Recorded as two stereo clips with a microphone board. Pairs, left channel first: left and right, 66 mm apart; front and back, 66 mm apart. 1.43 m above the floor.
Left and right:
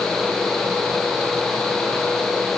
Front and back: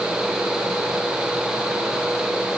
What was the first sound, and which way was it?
Only background noise.